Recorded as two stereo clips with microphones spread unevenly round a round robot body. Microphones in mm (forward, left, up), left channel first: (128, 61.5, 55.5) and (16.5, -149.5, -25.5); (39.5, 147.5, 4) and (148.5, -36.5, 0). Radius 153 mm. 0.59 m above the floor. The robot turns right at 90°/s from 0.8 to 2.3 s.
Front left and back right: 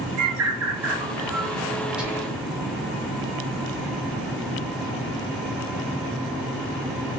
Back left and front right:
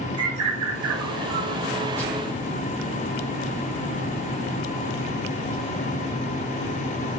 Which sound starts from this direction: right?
A bird, at 0.2 s.